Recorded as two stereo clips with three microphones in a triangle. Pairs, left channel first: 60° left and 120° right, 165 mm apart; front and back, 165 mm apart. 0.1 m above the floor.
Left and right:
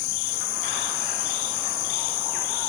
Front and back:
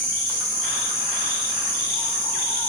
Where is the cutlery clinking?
I don't hear cutlery clinking.